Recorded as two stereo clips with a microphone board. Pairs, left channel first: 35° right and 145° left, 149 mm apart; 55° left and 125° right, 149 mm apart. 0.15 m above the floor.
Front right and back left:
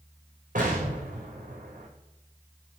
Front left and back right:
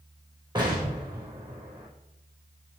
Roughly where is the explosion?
Behind.